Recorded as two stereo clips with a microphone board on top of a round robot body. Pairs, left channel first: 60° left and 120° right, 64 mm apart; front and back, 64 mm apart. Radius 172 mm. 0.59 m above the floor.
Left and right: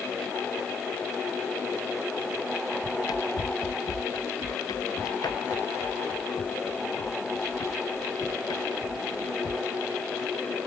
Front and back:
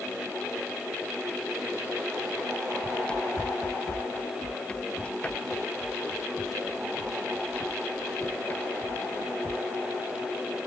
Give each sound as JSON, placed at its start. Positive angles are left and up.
{"t": 2.8, "sound": "running footsteps", "azimuth_deg": 75}